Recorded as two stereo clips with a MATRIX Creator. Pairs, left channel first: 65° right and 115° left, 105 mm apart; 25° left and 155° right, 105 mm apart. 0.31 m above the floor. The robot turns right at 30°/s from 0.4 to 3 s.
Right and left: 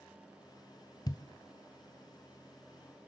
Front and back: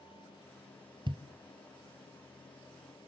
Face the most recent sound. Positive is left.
turn(degrees=-60)